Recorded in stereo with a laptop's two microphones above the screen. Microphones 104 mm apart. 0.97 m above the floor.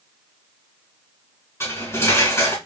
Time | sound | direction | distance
1.6 | cutlery clinking | 25° left (ahead or behind) | 2.5 m